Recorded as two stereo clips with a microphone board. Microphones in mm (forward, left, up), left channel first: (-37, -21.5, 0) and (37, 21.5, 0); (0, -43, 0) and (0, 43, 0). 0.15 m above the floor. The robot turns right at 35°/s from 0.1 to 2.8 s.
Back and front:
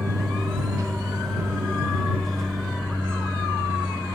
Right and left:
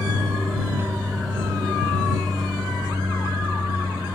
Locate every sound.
0.0 s an aircraft: 25° left; by 4.2 s 105° left